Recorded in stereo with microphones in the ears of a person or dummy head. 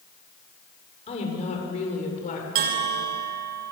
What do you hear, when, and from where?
1.1 s a woman speaking: 30° left (ahead or behind), 7 m; by 2.5 s 40° left (ahead or behind), 8 m
2.5 s a bell: 50° right (ahead or behind), 2.5 m